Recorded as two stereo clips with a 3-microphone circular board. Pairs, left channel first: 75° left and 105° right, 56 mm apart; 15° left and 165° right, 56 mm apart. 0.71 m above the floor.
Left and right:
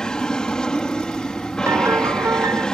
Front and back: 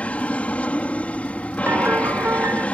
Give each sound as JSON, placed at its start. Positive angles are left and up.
{"t": 0.0, "sound": "an aircraft", "azimuth_deg": 20}
{"t": 1.7, "sound": "a piano", "azimuth_deg": -125}